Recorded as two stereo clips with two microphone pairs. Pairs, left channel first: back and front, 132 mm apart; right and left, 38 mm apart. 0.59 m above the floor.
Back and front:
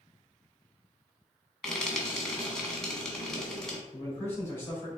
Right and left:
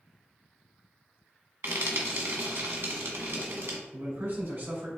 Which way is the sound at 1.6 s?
95° left.